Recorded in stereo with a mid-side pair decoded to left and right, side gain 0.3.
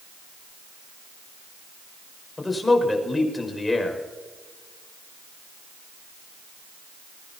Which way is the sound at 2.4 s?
30° left.